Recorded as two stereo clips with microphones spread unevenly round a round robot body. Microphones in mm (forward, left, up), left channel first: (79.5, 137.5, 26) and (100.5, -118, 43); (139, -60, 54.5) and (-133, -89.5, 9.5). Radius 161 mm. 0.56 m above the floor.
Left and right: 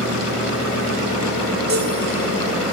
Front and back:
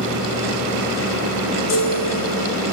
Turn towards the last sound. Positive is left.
turn(degrees=-35)